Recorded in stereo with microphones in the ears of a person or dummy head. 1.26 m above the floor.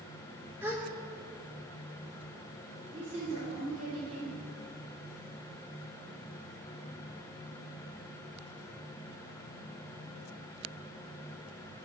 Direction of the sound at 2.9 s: 45° right (ahead or behind).